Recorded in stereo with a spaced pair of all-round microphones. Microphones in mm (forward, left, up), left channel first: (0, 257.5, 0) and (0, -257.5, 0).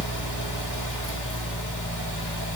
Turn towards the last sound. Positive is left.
turn(degrees=35)  # may be behind; listen again after turning